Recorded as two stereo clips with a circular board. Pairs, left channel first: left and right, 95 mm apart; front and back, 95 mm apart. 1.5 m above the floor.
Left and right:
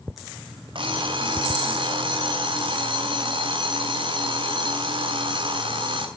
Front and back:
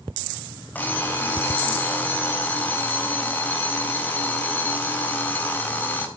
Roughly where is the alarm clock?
Right.